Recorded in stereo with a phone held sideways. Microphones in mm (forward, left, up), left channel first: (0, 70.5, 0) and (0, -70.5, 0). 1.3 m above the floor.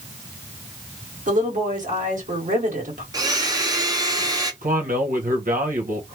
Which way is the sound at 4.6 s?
80° right.